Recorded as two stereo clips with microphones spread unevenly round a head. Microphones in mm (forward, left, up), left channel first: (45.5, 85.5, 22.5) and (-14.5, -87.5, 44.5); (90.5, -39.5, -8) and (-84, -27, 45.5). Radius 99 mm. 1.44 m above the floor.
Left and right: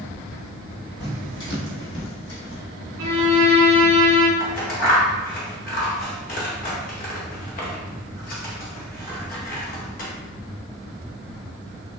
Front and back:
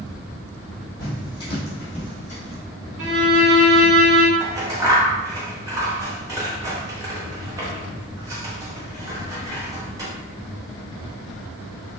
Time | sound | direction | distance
1.0 | footsteps | 80° left | 1.9 m
3.0 | a violin | 150° right | 1.8 m
4.4 | scissors | 115° left | 0.7 m